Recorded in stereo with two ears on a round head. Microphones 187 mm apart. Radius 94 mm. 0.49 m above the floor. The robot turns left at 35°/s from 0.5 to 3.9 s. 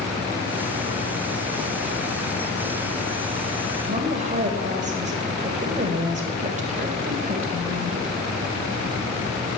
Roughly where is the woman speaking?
Right.